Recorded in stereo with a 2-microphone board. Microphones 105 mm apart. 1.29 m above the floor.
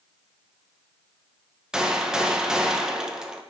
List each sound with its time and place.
1.7 s a gunshot: 5° right (ahead or behind), 0.5 m